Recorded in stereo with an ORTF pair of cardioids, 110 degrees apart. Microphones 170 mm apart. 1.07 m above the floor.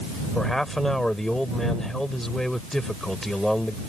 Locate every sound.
0.3 s a man speaking: straight ahead